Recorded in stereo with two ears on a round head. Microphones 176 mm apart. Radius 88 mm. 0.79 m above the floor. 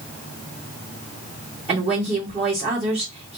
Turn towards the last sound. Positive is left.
turn(degrees=-35)  # may be behind; listen again after turning